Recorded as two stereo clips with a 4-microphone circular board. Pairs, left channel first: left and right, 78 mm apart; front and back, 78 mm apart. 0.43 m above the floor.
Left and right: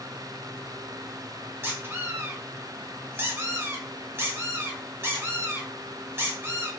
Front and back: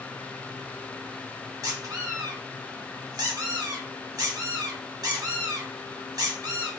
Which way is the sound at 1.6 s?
145° right.